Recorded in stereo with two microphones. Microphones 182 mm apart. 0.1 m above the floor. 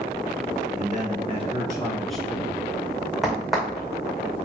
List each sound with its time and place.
0.8 s a man speaking: 50° right (ahead or behind), 1.8 m; by 2.6 s 25° left (ahead or behind), 1.3 m
3.2 s a crack: centre (ahead or behind), 2.5 m